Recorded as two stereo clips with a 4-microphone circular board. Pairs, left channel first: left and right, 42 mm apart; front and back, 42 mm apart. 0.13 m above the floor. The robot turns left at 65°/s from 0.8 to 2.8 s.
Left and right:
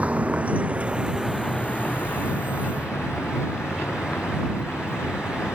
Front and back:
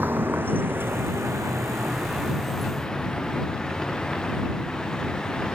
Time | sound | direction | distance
0.0 | a vehicle | 145° right | ?